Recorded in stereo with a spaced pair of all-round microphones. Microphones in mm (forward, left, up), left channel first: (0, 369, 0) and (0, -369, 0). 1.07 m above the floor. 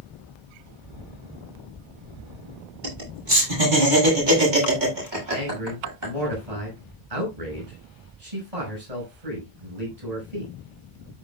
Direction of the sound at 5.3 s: 55° right (ahead or behind).